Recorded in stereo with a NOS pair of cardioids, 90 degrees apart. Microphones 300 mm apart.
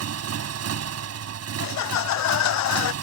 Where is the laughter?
65° left.